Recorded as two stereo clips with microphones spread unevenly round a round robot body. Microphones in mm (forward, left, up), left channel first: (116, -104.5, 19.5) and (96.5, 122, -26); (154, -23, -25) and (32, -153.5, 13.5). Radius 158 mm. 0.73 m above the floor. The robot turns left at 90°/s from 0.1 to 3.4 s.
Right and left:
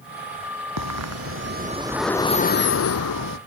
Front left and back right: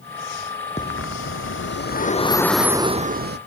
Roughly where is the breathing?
Behind left.